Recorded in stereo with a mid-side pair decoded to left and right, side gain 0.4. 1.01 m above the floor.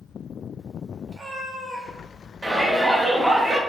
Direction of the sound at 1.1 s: 45° right.